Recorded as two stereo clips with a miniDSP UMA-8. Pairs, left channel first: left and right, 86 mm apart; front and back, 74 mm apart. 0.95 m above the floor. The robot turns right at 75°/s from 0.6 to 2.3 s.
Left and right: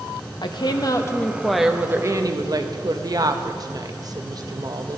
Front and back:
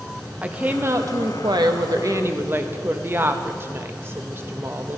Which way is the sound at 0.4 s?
110° left.